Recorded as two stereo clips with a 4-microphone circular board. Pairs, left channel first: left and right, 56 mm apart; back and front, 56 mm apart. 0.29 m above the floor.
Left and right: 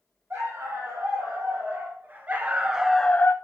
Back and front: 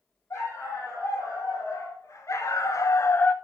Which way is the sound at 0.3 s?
140° right.